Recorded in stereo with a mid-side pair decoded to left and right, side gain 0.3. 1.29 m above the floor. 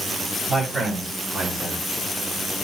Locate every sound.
0.5 s a man speaking: 50° right, 7.5 m; by 1.8 s 60° right, 7 m